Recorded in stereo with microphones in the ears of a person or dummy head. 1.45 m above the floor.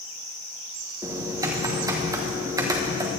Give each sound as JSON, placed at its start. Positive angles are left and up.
{"t": 1.0, "sound": "typing on a keyboard", "side_deg": -20, "distance_m": 1.2}